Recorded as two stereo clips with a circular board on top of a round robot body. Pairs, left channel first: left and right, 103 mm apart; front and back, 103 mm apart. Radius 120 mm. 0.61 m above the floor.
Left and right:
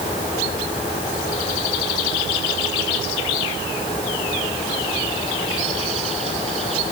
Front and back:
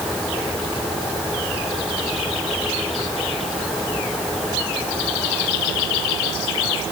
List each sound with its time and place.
Only background noise.